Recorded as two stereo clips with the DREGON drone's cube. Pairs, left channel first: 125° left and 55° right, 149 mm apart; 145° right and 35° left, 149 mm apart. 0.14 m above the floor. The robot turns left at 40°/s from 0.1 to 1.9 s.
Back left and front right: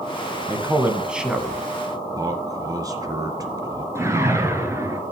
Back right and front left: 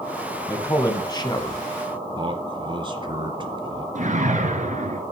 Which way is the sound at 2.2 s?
5° right.